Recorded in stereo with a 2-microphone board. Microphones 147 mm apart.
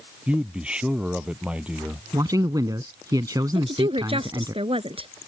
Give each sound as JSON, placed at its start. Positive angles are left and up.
{"t": 0.3, "sound": "a man speaking", "side_deg": -10}
{"t": 2.1, "sound": "a man speaking", "side_deg": -25}
{"t": 3.5, "sound": "a woman speaking", "side_deg": -40}